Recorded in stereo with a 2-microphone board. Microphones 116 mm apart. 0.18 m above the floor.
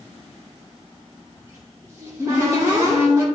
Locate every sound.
1.4 s a cupboard door: 25° right (ahead or behind), 4 m